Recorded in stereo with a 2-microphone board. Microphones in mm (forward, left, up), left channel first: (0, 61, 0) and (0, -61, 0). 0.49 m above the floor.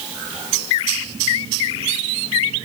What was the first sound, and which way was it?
Only background noise.